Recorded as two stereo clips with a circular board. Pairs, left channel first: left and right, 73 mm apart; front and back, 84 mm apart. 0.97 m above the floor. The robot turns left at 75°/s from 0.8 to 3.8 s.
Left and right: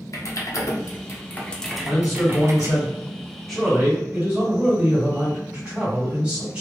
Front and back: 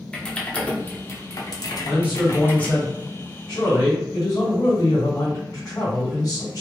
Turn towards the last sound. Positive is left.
turn(degrees=-20)